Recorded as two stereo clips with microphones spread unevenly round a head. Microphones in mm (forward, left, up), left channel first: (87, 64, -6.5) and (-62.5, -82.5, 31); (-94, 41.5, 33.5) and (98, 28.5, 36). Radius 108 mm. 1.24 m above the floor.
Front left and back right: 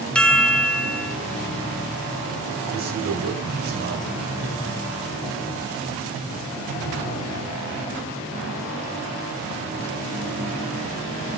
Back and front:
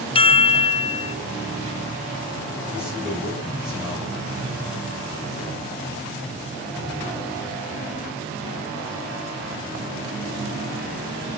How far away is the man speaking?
About 7.5 m.